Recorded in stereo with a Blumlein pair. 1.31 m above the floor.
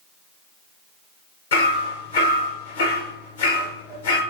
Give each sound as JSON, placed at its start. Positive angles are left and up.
{"t": 1.5, "sound": "hammering", "azimuth_deg": 65, "distance_m": 1.2}